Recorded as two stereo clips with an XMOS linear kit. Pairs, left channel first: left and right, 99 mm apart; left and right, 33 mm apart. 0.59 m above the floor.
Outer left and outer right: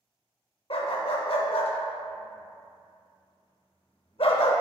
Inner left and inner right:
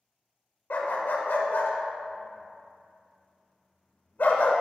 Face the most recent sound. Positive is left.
turn(degrees=70)  # may be behind; listen again after turning